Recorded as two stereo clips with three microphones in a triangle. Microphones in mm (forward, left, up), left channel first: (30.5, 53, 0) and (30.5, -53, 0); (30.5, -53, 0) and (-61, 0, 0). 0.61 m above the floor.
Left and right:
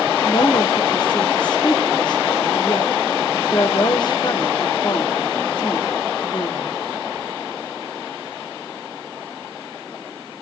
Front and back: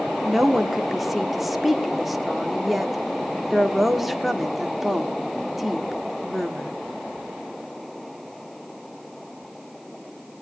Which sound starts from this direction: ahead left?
A woman speaking, at 0.2 s.